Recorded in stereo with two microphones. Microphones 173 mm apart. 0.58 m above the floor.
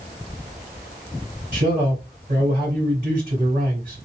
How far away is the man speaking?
About 2.5 m.